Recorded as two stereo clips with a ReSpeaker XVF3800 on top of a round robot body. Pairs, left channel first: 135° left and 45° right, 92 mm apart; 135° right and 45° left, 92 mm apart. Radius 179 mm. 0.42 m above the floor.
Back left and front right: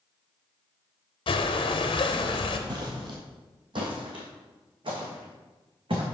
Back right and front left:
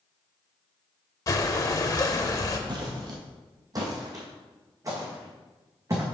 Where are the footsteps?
Straight ahead, 0.8 m; by 6.0 s 10° right, 2.5 m.